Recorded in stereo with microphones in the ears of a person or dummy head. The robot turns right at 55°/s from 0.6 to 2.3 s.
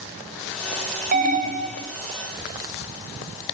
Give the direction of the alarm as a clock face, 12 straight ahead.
3 o'clock.